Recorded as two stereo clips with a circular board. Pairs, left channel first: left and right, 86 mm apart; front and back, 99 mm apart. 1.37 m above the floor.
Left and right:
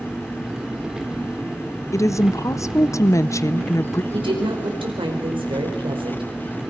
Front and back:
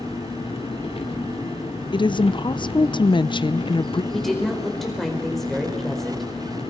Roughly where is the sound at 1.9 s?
Ahead left.